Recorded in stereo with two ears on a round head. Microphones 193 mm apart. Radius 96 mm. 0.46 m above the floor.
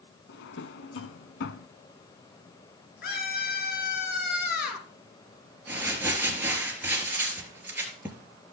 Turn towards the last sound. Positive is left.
turn(degrees=-10)  # may be behind; listen again after turning